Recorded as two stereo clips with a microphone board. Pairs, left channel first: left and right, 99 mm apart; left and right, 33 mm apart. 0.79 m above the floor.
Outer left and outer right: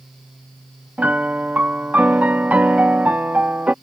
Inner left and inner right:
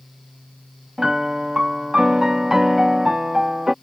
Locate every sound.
1.0 s a piano: 15° right (ahead or behind)